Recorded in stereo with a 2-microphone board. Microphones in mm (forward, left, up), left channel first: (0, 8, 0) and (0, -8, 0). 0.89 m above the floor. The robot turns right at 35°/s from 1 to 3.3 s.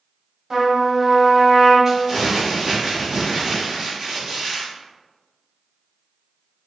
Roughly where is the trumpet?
Right.